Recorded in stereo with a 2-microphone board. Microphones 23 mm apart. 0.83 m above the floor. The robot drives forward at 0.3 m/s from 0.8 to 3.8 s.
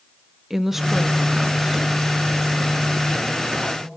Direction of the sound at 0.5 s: 20° right (ahead or behind).